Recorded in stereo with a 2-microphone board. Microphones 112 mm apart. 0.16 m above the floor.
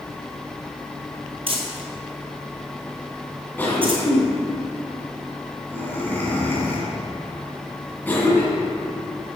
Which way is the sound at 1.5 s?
50° right (ahead or behind).